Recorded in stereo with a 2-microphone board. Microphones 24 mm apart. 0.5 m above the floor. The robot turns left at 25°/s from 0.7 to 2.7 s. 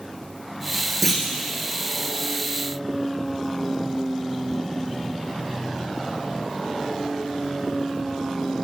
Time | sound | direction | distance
1.0 | a clunk | 5° left (ahead or behind) | 1.6 m